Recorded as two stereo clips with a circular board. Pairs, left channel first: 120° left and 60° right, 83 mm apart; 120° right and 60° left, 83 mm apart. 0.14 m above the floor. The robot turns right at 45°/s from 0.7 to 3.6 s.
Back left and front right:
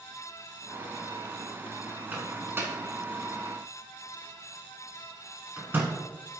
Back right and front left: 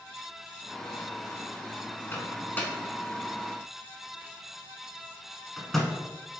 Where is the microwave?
105° right, 0.9 m; by 5.9 s 40° right, 0.9 m.